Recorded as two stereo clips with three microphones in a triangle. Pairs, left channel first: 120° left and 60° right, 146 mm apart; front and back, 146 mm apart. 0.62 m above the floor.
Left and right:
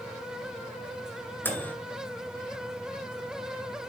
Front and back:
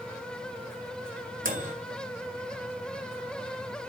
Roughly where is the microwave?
Behind.